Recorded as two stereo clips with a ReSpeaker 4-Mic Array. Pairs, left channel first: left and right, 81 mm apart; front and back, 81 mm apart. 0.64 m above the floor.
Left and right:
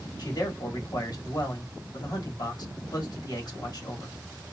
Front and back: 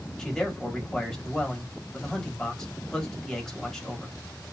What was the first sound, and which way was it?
A man speaking, 80° left.